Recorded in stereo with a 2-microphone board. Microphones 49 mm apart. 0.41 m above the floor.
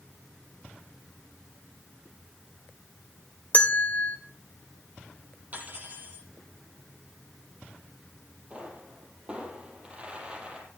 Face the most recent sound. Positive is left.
turn(degrees=-25)  # may be behind; listen again after turning